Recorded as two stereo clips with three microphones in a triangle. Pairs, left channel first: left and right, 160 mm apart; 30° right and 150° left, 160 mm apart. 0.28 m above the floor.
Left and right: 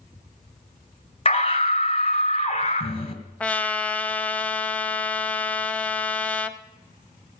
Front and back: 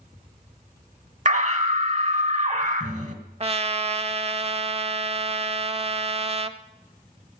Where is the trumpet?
165° left, 0.6 m.